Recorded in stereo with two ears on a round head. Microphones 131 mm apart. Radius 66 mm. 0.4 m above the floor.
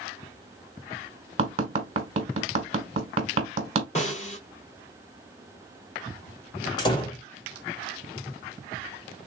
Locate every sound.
1.4 s tapping: 40° right (ahead or behind), 1.4 m
4.0 s a snare drum: 45° left (ahead or behind), 2 m
6.8 s a door slam: 30° left (ahead or behind), 1.1 m